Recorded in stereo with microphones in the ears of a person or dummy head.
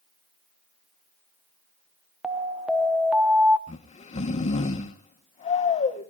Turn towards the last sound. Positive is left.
turn(degrees=35)  # may be behind; listen again after turning